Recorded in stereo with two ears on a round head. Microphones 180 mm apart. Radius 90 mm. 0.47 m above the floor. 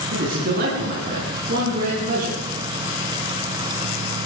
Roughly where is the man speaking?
Right.